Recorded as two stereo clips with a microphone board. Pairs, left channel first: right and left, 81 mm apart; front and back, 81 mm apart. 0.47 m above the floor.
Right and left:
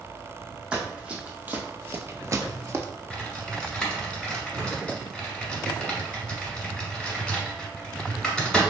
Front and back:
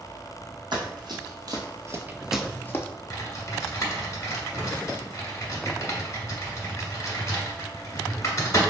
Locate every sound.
0.7 s running footsteps: 165° left, 1.4 m; by 2.9 s 45° left, 0.6 m
3.1 s typing on a keyboard: 15° right, 1.2 m